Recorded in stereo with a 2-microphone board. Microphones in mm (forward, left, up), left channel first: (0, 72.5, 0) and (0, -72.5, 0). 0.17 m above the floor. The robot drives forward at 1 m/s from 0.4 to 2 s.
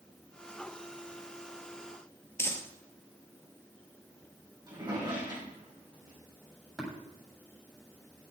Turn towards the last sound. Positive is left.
turn(degrees=0)  # may be behind; listen again after turning